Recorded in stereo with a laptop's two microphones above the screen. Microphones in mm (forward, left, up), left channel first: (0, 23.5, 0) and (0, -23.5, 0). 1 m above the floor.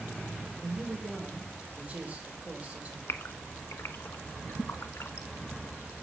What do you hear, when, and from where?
0.6 s a man speaking: 30° right (ahead or behind), 5.5 m
3.1 s a gasp: 70° left (ahead or behind), 1.4 m